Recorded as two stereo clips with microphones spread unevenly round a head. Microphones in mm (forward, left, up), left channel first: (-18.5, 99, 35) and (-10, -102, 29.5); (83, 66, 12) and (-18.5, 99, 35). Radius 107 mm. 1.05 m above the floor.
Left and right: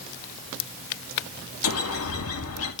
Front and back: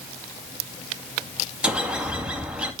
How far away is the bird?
About 2.5 m.